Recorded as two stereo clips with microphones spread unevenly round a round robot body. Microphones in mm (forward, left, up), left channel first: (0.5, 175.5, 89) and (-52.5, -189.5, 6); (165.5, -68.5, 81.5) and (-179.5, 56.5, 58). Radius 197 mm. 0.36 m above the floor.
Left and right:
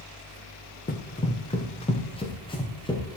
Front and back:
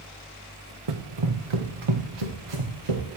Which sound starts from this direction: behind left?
Running footsteps, at 0.9 s.